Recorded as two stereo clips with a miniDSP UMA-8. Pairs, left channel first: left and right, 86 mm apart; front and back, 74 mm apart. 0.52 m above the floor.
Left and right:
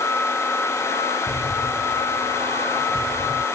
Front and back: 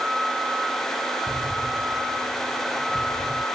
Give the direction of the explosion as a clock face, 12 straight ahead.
8 o'clock.